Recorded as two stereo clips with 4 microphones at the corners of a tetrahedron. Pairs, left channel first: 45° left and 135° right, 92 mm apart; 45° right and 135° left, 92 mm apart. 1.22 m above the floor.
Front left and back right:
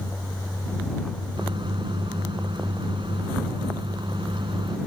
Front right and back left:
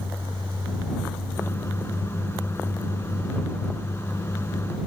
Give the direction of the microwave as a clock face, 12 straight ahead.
4 o'clock.